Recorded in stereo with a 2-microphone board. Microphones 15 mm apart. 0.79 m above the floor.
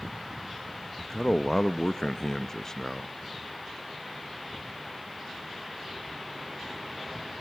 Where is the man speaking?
35° left (ahead or behind), 0.6 m.